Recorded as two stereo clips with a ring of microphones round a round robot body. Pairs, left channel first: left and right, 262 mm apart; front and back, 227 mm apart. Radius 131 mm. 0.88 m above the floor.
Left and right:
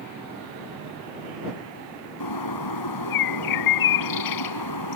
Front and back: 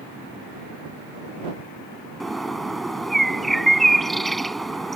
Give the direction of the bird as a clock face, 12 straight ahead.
9 o'clock.